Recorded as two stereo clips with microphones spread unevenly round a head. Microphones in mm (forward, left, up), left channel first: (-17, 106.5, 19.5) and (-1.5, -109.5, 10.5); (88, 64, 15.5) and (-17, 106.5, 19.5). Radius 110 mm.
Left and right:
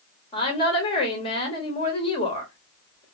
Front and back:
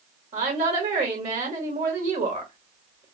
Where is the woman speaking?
160° left, 1.7 m.